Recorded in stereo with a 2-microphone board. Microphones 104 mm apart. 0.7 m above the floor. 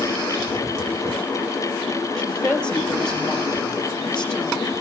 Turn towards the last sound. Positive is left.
turn(degrees=10)  # may be behind; listen again after turning